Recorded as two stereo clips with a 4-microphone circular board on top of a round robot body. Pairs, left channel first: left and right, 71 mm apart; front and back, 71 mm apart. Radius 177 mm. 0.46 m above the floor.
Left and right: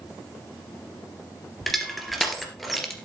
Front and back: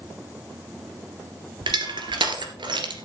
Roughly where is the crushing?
Behind.